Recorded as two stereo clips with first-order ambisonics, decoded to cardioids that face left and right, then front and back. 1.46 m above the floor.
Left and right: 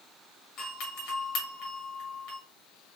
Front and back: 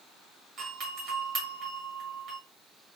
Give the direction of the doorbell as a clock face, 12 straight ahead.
8 o'clock.